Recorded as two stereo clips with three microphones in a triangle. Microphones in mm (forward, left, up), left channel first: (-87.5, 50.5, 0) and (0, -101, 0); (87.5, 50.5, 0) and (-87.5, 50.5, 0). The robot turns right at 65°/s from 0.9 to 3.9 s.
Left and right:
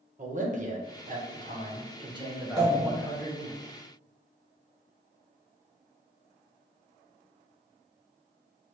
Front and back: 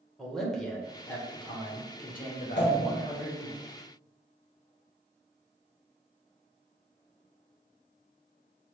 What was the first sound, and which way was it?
A man speaking, 85° right.